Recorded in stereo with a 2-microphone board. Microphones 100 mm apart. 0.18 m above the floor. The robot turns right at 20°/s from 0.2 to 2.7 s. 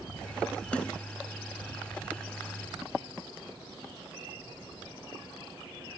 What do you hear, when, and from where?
0.7 s a snare drum: 10° left (ahead or behind); by 1.0 s 5° left (ahead or behind)